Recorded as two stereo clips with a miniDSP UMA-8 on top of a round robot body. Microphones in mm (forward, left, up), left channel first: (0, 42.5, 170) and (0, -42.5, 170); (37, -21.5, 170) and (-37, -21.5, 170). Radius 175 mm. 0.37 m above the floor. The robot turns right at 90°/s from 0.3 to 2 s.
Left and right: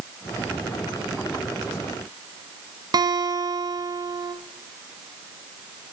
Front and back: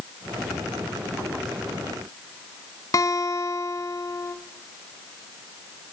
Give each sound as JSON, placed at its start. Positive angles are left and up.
{"t": 2.9, "sound": "a guitar", "azimuth_deg": -45, "distance_m": 1.7}